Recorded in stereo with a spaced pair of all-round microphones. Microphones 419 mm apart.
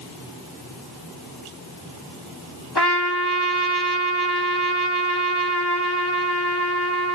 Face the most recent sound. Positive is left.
turn(degrees=65)  # may be behind; listen again after turning